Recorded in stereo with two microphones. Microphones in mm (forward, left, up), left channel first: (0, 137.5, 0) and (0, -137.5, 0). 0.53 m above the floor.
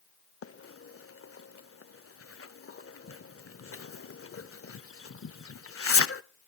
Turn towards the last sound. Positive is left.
turn(degrees=55)  # may be behind; listen again after turning